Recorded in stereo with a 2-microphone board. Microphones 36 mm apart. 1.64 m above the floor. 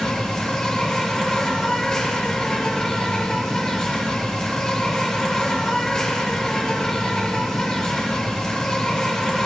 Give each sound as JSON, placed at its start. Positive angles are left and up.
{"t": 0.0, "sound": "an insect", "side_deg": 15, "distance_m": 1.8}